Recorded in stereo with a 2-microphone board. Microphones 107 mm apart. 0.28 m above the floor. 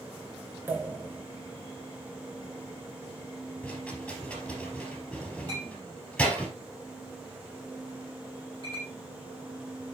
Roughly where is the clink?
Right.